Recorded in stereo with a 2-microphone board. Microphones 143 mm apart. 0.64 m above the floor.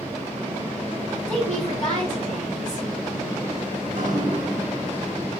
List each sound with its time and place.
1.3 s a woman speaking: 5° left (ahead or behind), 3 m
3.8 s dripping: 65° right (ahead or behind), 1.8 m